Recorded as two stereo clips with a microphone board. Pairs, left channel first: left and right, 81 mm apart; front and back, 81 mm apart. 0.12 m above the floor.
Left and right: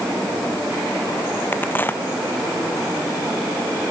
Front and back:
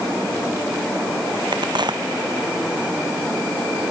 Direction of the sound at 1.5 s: 155° left.